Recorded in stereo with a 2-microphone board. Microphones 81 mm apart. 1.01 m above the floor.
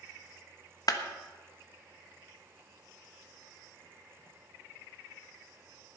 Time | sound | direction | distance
0.9 | a clap | 55° left (ahead or behind) | 1.2 m